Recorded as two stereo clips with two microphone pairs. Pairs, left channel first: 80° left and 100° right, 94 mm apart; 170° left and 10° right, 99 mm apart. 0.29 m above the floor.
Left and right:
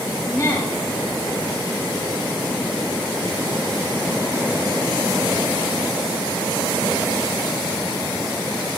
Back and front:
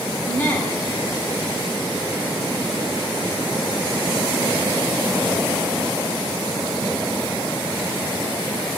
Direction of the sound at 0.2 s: 115° left.